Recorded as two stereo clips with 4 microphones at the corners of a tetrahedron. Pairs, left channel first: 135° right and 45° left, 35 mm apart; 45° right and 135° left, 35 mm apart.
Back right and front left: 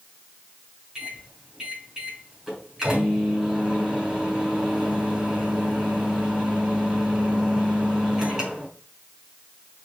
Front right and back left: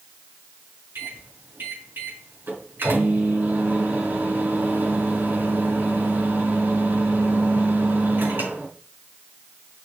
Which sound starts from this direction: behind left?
A microwave, at 0.9 s.